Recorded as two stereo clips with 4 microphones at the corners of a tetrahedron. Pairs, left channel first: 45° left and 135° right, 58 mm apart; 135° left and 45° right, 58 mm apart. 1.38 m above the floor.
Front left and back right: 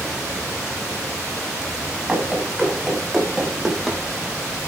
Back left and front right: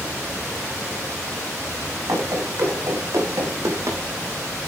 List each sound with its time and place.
2.1 s running footsteps: 60° right, 6.5 m; by 4.0 s 50° right, 4 m